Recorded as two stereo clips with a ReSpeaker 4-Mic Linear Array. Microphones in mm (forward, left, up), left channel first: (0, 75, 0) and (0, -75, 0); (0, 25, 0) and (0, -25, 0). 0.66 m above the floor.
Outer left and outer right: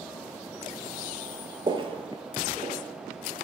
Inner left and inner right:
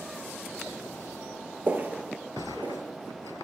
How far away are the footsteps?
About 0.8 m.